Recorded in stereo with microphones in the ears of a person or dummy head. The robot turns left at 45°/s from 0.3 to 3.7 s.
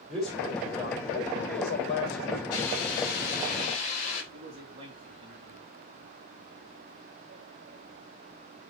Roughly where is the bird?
I don't hear a bird.